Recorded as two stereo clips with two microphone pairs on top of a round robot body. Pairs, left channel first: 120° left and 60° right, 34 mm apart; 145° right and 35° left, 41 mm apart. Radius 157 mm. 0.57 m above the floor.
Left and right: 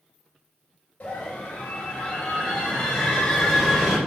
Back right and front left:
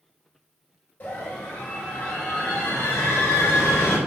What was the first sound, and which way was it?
A scream, straight behind.